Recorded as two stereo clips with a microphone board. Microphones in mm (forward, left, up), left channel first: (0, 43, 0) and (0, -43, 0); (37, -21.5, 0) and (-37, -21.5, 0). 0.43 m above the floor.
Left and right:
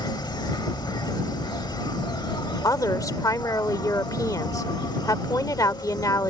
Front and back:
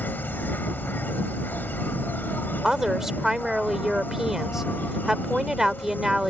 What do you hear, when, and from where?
0.0 s an insect: 60° left
2.6 s a woman speaking: 100° left